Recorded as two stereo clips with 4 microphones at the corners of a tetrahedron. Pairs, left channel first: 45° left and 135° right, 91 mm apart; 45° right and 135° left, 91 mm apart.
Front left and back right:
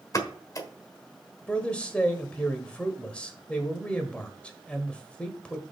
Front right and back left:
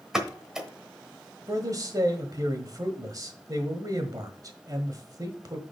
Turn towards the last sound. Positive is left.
turn(degrees=115)